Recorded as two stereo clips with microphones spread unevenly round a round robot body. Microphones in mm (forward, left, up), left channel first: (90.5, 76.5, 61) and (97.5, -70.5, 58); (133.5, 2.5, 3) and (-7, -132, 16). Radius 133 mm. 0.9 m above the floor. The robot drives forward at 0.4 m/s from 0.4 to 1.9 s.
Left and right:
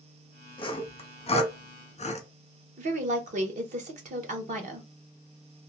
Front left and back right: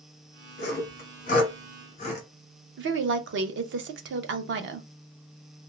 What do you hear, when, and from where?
0.6 s sawing: 40° left, 1.0 m; by 2.3 s 80° left, 0.8 m
2.8 s a woman speaking: 115° right, 0.5 m